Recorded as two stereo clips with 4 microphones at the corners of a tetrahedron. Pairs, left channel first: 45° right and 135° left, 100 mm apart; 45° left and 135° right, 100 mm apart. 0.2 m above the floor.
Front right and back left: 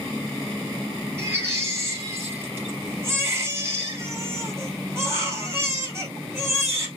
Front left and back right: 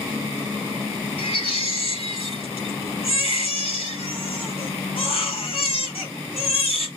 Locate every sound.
1.2 s a baby crying: 70° left, 2 m